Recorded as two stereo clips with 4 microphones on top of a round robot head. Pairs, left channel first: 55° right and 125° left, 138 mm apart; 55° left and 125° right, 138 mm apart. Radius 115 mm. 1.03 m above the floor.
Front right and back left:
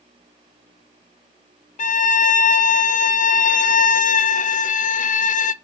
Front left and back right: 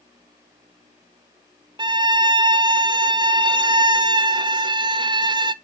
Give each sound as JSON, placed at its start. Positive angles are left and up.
{"t": 1.8, "sound": "a violin", "azimuth_deg": -70, "distance_m": 0.6}